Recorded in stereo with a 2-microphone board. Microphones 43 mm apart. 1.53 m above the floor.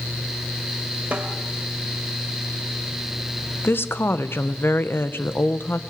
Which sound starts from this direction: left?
A woman speaking, at 3.6 s.